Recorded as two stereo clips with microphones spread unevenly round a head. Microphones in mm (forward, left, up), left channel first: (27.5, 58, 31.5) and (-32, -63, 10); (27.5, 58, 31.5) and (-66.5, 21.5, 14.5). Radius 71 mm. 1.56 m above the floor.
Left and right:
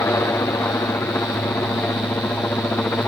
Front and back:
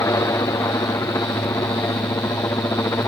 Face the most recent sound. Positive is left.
turn(degrees=-10)